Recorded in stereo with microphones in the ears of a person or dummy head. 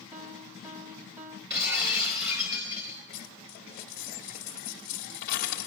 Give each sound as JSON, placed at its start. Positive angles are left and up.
{"t": 0.1, "sound": "a piano", "side_deg": -10, "distance_m": 0.7}
{"t": 1.5, "sound": "breaking glass", "side_deg": -10, "distance_m": 4.0}
{"t": 3.1, "sound": "a dropped coin", "side_deg": 60, "distance_m": 1.1}